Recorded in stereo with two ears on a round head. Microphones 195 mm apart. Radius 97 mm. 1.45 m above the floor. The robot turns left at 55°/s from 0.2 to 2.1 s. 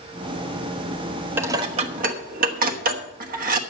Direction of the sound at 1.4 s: 10° right (ahead or behind).